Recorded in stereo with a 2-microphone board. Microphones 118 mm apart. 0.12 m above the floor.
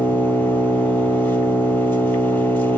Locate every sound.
0.0 s an engine running: 15° left (ahead or behind), 0.8 m